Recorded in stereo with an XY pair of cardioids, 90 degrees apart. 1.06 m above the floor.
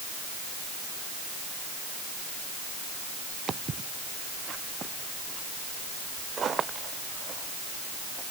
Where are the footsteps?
50° right.